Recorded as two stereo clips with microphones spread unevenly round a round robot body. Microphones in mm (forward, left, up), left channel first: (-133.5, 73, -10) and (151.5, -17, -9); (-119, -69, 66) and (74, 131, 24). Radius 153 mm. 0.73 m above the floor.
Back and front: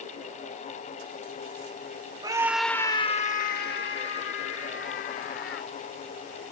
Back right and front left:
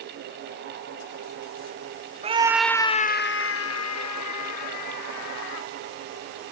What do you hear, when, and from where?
2.2 s a scream: 45° left; by 5.7 s 145° right